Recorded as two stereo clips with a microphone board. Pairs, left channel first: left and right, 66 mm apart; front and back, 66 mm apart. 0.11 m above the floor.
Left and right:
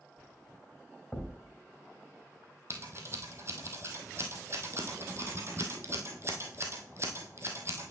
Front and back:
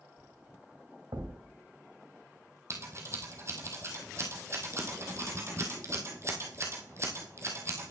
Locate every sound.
1.1 s a thud: 175° left, 2.5 m
2.7 s scissors: 135° right, 1.7 m